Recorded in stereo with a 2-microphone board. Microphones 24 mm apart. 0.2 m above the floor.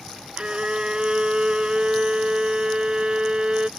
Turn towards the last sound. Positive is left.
turn(degrees=-35)  # may be behind; listen again after turning